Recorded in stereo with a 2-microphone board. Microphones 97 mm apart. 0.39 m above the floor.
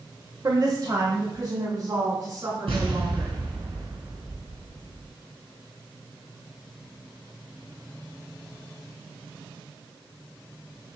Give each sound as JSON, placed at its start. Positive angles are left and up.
{"t": 0.4, "sound": "a woman speaking", "side_deg": -45, "distance_m": 1.0}
{"t": 2.7, "sound": "an explosion", "side_deg": -80, "distance_m": 2.5}